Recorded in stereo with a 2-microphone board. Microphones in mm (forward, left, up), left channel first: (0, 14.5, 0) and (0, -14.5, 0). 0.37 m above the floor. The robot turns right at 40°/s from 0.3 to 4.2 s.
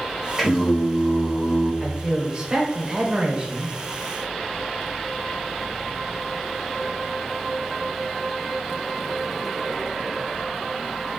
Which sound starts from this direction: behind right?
A man speaking, at 1.8 s.